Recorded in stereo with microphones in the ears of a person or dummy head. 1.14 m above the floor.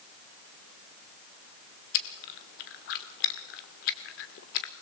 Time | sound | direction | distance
1.9 | chewing | 50° left (ahead or behind) | 1.0 m